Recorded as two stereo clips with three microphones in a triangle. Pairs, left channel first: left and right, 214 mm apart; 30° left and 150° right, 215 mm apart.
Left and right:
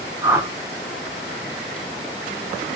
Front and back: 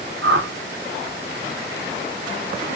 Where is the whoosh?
165° right, 0.6 m.